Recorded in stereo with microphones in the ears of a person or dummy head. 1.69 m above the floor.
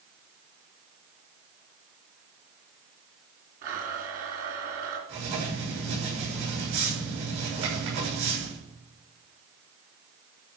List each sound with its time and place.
3.6 s a blender: 50° right (ahead or behind), 3 m
5.1 s writing: 60° right (ahead or behind), 6.5 m